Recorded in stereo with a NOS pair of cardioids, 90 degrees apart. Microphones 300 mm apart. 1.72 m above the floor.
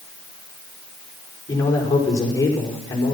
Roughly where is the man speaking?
Ahead.